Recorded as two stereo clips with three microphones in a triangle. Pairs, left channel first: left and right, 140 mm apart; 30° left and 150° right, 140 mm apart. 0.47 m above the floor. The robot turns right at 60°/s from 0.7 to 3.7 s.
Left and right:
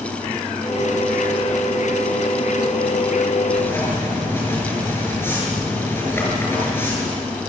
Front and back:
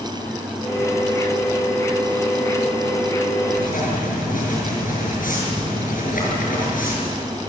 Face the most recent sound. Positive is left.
turn(degrees=15)